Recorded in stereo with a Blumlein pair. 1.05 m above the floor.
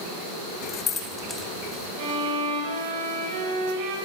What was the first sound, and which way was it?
Keys jangling, 35° left.